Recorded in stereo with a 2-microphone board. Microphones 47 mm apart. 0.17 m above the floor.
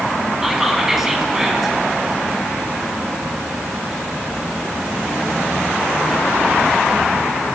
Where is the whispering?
10° right (ahead or behind), 1.5 m.